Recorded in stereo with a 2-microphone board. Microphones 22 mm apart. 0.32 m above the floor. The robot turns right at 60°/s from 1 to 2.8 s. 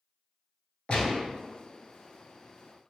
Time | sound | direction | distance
0.9 | a gunshot | 45° left (ahead or behind) | 0.8 m